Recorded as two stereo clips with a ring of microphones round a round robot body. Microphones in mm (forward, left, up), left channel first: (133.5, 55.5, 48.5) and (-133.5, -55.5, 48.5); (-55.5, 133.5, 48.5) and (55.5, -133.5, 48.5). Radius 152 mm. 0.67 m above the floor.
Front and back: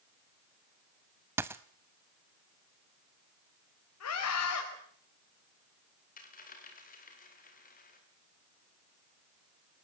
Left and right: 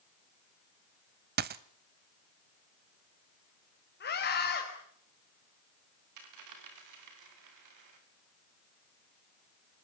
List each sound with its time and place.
1.4 s a dropped coin: 80° right, 0.5 m
4.0 s a scream: 60° left, 4.5 m
6.2 s a dropped coin: 40° right, 5.5 m